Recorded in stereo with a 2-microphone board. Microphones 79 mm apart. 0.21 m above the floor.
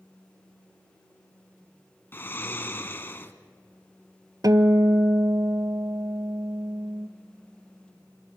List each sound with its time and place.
2.1 s snoring: 30° left (ahead or behind), 1.0 m
4.4 s a guitar: 55° right (ahead or behind), 0.7 m